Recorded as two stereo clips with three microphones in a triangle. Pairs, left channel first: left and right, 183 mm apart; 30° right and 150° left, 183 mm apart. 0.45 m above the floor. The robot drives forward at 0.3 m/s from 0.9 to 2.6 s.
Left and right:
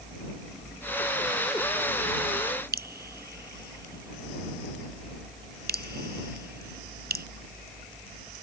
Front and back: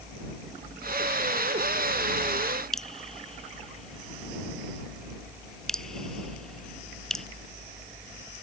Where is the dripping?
115° right.